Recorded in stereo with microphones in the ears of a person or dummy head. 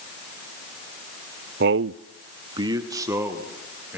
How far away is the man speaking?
About 0.6 m.